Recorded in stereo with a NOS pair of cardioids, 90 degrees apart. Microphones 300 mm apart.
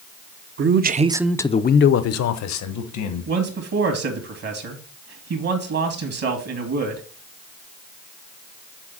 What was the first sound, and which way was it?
A man speaking, 40° right.